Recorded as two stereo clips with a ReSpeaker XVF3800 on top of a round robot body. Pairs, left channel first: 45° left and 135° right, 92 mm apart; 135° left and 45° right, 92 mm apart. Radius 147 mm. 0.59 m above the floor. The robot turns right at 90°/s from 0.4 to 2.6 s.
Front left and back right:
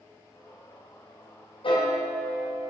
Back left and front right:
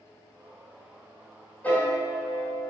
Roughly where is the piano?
Ahead left.